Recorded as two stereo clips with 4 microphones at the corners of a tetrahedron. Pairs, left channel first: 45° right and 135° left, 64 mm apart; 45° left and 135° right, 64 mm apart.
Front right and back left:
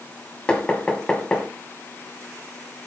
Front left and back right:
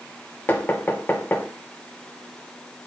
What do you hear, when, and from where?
0.5 s knocking: 20° left, 1.3 m